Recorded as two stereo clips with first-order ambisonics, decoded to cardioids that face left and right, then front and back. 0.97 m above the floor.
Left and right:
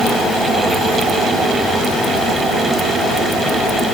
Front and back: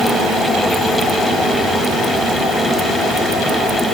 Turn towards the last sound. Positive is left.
No sound to turn to.